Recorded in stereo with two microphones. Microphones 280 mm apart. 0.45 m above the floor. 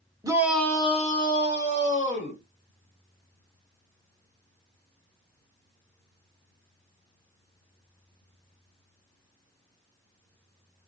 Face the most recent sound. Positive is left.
turn(degrees=45)  # may be behind; listen again after turning